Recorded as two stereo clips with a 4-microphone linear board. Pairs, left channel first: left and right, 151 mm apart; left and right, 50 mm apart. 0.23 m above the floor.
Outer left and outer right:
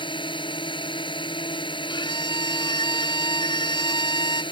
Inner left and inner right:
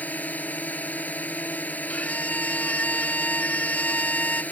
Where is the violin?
35° left (ahead or behind).